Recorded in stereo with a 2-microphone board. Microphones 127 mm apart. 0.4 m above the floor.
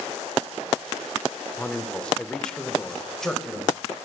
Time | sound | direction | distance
1.6 | a man speaking | 10° left (ahead or behind) | 0.8 m